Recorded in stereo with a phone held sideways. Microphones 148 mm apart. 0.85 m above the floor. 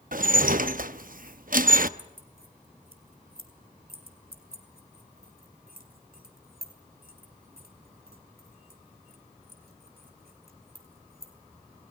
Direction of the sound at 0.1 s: 65° right (ahead or behind).